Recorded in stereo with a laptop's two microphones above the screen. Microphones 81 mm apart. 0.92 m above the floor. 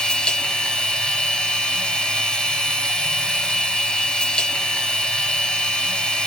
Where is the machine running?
15° left (ahead or behind), 1.8 m.